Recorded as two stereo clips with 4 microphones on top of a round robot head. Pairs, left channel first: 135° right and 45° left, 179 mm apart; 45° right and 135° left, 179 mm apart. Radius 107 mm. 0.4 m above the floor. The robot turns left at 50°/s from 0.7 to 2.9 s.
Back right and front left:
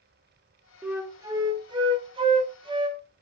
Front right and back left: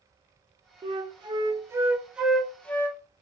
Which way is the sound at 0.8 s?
120° left.